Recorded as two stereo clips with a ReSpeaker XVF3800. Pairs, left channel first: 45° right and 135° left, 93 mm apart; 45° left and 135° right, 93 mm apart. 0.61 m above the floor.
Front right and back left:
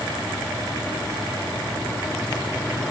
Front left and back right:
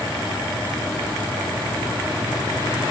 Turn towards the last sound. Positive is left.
No sound to turn to.